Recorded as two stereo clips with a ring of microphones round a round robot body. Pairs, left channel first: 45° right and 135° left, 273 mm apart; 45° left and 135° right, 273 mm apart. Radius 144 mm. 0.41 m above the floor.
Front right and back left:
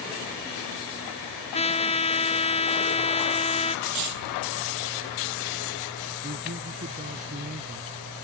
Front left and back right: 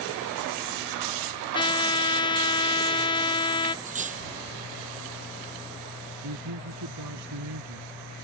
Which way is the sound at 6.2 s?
165° right.